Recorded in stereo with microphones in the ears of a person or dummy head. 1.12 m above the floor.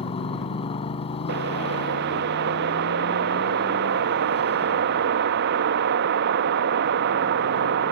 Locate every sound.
0.0 s a motorcycle: 30° left (ahead or behind)
1.3 s a whoosh: 65° right (ahead or behind)